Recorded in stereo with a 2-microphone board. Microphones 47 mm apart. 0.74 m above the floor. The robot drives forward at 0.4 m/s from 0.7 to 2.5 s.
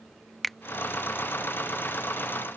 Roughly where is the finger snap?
Centre.